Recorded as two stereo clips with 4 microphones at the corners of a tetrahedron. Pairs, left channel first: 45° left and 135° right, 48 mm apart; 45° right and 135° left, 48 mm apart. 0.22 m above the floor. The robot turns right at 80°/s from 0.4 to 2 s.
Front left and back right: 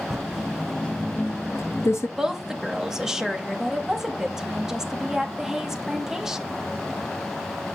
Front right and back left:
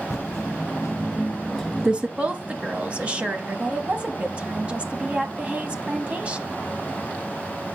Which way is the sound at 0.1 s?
60° right.